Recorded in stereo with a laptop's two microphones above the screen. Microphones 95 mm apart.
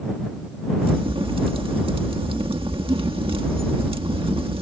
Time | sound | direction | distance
0.8 | a crack | 70° right (ahead or behind) | ?